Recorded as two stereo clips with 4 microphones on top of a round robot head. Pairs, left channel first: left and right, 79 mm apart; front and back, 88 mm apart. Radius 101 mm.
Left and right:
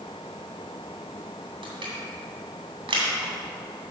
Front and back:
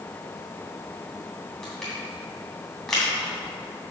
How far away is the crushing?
About 2.5 m.